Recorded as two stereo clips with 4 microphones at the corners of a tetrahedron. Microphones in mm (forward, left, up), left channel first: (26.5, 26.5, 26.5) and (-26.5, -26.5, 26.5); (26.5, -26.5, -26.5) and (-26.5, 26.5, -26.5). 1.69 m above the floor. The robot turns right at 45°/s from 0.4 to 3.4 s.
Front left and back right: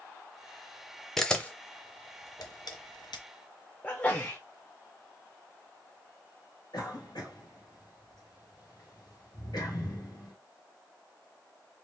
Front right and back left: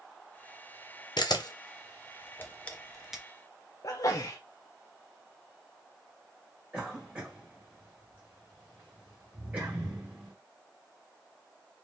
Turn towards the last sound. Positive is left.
turn(degrees=65)